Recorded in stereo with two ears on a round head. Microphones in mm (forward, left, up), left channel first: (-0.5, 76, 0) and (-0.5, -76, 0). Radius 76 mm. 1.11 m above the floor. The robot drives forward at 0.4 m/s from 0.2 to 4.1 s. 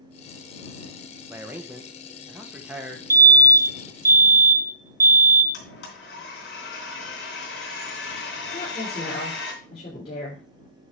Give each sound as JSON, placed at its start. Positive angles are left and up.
{"t": 1.3, "sound": "a man speaking", "side_deg": -15, "distance_m": 1.2}
{"t": 3.1, "sound": "a fire alarm", "side_deg": -20, "distance_m": 1.0}
{"t": 5.5, "sound": "a blender", "side_deg": 70, "distance_m": 3.5}
{"t": 8.5, "sound": "a woman speaking", "side_deg": 40, "distance_m": 4.0}